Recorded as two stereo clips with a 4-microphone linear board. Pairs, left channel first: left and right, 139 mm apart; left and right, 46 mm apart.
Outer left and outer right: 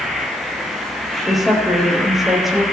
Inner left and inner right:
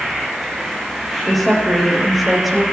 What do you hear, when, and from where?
0.0 s an insect: centre (ahead or behind), 3 m
1.2 s a woman speaking: centre (ahead or behind), 4.5 m